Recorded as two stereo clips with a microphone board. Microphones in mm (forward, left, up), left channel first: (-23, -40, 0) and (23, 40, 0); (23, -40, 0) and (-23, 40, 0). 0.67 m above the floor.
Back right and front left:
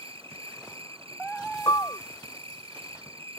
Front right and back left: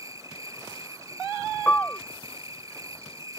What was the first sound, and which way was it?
An insect, 65° left.